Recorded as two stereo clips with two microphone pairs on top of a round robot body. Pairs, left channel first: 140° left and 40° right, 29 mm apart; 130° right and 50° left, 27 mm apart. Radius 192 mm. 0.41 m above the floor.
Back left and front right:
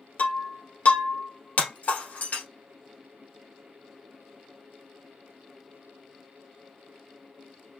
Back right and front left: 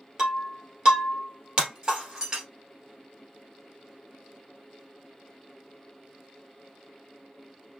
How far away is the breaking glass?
About 1.8 m.